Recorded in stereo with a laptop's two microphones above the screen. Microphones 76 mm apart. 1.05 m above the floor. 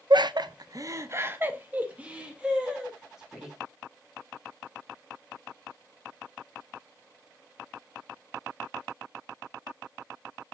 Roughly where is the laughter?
Right.